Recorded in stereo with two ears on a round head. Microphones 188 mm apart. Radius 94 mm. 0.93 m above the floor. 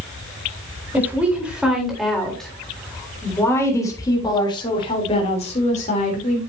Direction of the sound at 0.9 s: 10° right (ahead or behind).